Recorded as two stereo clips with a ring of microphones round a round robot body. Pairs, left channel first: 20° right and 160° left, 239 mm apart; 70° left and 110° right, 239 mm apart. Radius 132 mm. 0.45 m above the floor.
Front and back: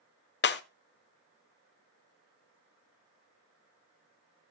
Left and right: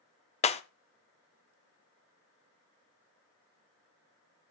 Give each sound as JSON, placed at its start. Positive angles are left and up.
{"t": 0.4, "sound": "breaking glass", "azimuth_deg": 10, "distance_m": 0.9}